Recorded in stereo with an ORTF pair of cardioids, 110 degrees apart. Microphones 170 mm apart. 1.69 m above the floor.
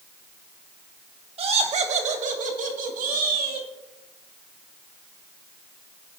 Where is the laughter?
35° right, 2 m; by 3.7 s 60° right, 3.5 m.